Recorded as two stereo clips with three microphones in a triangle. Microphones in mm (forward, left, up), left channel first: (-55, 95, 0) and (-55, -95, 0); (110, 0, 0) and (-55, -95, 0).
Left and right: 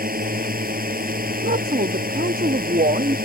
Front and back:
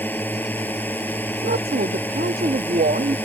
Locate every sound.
0.0 s a drone: 50° right
1.4 s a woman speaking: 120° right